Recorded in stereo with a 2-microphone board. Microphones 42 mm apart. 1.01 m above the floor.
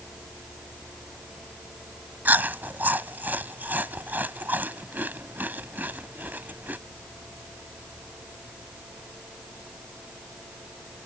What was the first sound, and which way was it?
Chewing, 45° right (ahead or behind).